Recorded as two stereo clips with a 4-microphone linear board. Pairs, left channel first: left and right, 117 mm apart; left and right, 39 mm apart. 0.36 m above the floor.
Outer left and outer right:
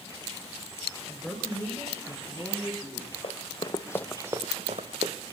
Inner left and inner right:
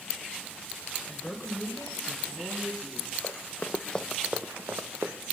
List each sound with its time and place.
1.1 s a woman speaking: centre (ahead or behind), 1.4 m; by 3.1 s 10° right (ahead or behind), 3.5 m
3.2 s running footsteps: 55° left (ahead or behind), 1.6 m; by 5.1 s 75° right (ahead or behind), 1.5 m